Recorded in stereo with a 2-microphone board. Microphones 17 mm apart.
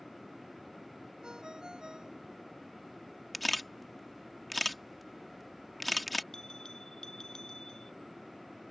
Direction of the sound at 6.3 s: 35° left (ahead or behind).